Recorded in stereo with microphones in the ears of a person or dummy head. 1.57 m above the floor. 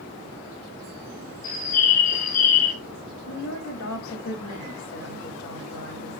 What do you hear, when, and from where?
1.4 s a bird: 45° left (ahead or behind), 2.5 m
3.3 s a woman speaking: 85° left, 3 m